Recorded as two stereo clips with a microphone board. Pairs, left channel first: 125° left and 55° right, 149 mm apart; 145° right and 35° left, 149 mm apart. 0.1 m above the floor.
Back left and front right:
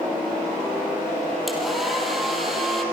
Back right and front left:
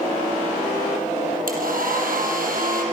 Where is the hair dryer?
35° left, 5 m.